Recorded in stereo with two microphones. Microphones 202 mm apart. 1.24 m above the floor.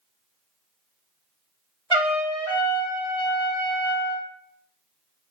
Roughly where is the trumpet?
Right.